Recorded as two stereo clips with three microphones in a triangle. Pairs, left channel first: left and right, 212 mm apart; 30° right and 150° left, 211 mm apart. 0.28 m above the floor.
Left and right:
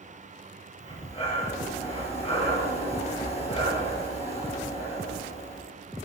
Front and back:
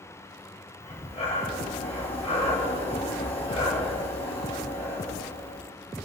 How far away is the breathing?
About 3.5 m.